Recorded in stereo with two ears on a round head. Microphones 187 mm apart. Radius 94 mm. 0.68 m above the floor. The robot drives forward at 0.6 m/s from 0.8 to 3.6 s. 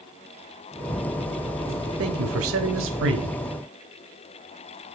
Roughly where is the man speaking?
Right.